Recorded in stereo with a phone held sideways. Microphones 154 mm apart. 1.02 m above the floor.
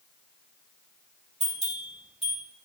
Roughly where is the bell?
Right.